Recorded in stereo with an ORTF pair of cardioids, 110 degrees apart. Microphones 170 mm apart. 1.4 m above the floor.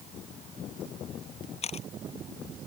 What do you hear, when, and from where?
1.6 s a camera shutter: 40° left